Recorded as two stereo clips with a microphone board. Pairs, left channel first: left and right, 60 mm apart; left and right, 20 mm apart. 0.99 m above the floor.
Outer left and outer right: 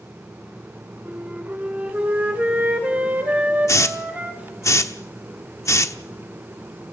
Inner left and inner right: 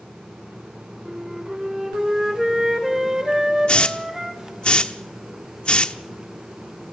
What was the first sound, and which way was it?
A flute, 25° right (ahead or behind).